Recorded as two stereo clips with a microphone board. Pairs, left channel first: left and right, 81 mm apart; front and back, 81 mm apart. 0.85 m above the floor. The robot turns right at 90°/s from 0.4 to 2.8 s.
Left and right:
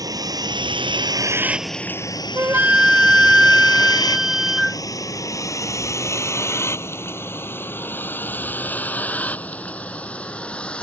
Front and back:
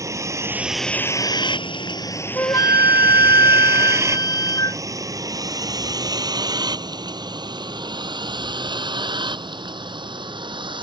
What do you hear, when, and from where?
0.0 s a vehicle: 130° right; by 10.8 s 165° left
2.4 s a flute: 50° right; by 4.8 s 10° right